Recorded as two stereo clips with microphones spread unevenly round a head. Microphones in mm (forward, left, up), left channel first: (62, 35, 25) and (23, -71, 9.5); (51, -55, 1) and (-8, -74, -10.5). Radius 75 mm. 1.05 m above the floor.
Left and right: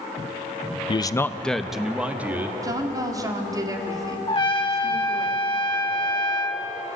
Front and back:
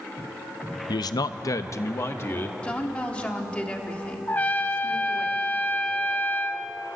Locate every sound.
0.9 s a man speaking: 25° left, 0.7 m; by 2.5 s 35° right, 2 m
2.6 s a woman speaking: 55° right, 3 m
4.3 s a trumpet: 55° left, 1.1 m